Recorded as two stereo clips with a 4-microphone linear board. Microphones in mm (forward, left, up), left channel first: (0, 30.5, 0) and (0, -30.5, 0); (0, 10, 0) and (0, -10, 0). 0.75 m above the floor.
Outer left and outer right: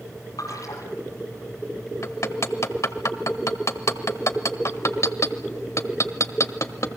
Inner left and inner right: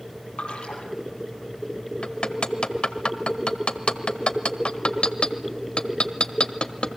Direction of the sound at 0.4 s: 70° left (ahead or behind).